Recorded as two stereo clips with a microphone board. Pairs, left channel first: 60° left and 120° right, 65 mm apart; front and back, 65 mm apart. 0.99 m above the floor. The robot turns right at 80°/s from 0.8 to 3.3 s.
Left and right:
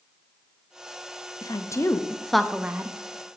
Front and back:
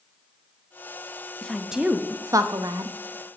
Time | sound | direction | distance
1.4 | a woman speaking | 75° left | 0.8 m